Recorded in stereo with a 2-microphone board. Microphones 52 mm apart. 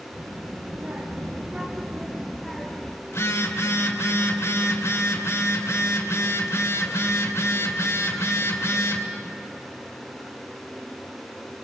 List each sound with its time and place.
0.1 s a child speaking: 50° right (ahead or behind), 2.5 m; by 3.0 s 15° left (ahead or behind), 1.7 m
3.1 s a phone buzzing: 60° left (ahead or behind), 3 m